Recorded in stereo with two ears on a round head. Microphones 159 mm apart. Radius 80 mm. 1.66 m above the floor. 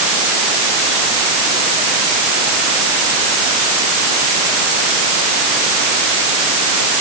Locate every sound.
Only background noise.